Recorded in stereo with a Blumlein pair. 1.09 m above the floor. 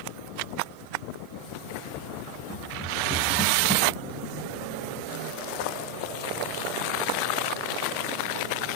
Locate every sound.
2.5 s running footsteps: straight ahead, 7 m